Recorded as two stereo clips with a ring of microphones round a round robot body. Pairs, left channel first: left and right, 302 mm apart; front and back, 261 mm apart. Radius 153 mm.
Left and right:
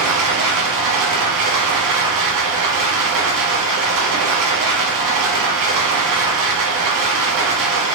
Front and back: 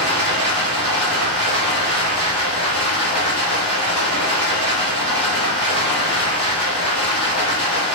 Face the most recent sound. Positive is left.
turn(degrees=-70)